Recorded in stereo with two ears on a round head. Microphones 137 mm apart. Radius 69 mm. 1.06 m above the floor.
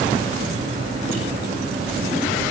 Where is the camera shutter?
No camera shutter in this recording.